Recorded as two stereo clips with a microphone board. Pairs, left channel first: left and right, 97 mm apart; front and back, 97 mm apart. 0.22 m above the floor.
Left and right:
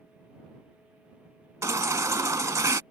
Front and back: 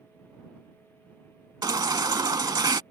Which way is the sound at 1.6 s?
140° right.